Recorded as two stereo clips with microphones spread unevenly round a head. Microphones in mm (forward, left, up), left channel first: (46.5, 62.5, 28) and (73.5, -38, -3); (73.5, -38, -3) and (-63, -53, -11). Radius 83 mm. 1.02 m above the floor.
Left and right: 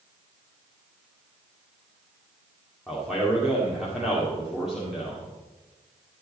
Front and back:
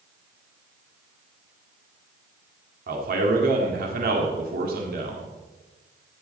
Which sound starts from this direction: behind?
A man speaking, at 2.9 s.